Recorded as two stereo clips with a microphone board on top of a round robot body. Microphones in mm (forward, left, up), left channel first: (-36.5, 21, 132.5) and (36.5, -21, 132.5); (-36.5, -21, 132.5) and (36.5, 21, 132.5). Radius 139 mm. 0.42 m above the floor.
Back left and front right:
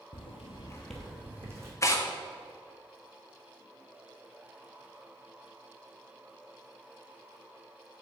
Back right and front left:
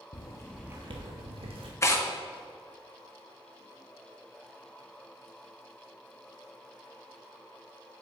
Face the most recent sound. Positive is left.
turn(degrees=175)